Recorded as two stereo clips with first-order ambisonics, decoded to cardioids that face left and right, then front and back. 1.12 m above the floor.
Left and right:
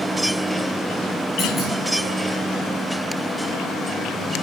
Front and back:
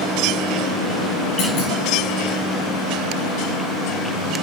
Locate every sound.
1.4 s a clunk: 20° left, 4 m